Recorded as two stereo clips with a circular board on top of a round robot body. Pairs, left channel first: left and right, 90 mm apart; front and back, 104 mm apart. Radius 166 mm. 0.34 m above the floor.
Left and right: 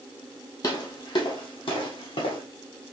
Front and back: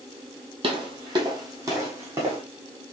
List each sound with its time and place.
0.6 s footsteps: 140° left, 0.9 m; by 2.4 s 115° left, 1.8 m